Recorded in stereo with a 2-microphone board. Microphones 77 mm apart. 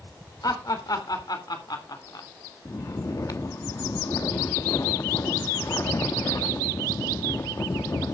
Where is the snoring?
45° left (ahead or behind), 1.0 m.